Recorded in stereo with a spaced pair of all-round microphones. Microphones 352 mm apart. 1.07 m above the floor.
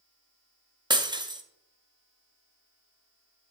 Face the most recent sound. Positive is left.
turn(degrees=-10)  # may be behind; listen again after turning